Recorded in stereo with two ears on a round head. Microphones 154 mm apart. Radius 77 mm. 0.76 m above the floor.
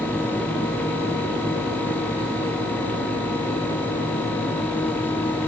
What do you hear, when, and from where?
Only background noise.